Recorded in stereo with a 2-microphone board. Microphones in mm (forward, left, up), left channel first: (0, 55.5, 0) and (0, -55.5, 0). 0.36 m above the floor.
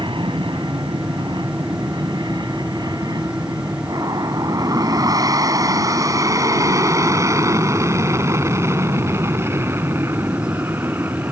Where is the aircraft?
50° right (ahead or behind); by 11.3 s 20° right (ahead or behind).